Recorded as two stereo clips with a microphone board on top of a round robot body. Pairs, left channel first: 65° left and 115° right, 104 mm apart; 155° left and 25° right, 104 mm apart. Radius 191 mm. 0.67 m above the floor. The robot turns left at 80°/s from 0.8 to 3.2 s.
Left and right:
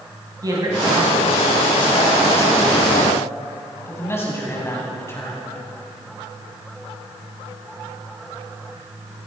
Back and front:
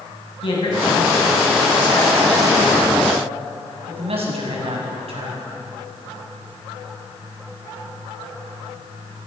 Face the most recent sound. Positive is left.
turn(degrees=0)